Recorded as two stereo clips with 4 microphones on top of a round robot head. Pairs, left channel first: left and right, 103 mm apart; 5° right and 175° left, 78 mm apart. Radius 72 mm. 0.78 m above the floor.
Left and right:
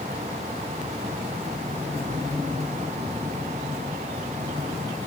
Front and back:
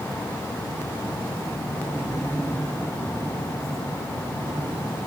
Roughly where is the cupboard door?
I don't hear a cupboard door.